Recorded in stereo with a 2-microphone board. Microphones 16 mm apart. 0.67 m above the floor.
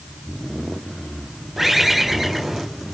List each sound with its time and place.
1.6 s a bird: 15° right (ahead or behind), 5 m